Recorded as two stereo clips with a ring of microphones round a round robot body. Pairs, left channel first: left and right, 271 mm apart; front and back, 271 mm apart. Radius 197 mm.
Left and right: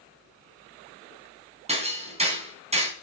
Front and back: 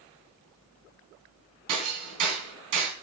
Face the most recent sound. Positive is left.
turn(degrees=-155)